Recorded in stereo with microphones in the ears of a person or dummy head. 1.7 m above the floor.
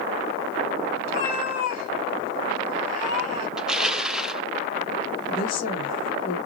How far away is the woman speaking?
About 2.5 m.